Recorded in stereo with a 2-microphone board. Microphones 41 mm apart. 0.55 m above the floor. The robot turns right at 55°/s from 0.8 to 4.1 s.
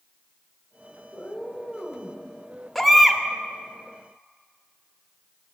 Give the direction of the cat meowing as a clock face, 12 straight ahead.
7 o'clock.